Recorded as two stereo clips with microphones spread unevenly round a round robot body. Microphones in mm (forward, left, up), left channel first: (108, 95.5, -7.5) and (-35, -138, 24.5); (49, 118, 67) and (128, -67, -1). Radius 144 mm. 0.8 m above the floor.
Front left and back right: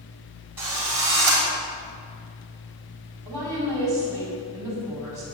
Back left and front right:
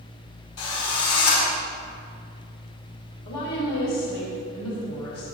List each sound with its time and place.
0.6 s a drill: 155° left, 5.5 m
3.2 s a woman speaking: 160° left, 5.5 m